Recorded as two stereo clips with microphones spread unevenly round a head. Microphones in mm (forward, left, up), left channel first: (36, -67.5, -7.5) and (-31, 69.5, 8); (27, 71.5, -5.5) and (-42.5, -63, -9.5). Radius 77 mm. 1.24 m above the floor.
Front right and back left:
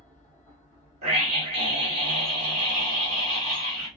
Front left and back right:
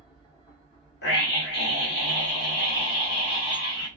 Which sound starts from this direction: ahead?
A machine running, at 0.0 s.